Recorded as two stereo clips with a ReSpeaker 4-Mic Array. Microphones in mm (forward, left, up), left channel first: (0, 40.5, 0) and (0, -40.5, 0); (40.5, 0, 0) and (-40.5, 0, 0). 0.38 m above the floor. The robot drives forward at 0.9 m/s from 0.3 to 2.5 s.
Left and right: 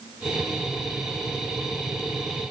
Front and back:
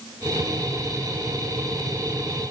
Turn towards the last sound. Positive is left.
No sound to turn to.